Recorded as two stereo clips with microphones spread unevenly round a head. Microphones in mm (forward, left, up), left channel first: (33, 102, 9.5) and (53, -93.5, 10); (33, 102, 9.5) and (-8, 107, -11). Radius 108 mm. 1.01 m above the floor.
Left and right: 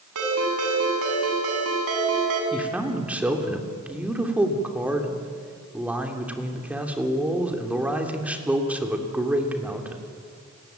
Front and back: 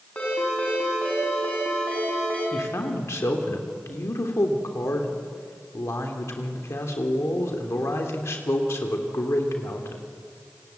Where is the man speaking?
Straight ahead, 3 m.